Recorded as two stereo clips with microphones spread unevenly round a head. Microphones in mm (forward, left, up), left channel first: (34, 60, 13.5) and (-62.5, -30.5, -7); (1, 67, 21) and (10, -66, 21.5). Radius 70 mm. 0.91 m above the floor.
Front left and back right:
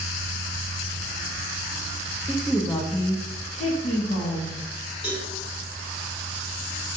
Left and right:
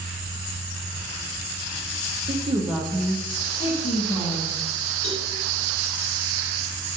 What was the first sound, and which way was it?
A woman speaking, 65° right.